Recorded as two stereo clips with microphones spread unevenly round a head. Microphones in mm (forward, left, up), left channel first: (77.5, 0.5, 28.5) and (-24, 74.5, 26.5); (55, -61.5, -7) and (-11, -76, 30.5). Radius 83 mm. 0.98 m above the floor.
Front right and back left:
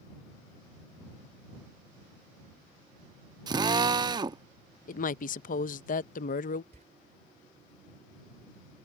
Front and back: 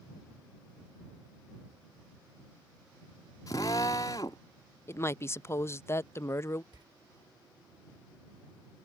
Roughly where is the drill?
Left.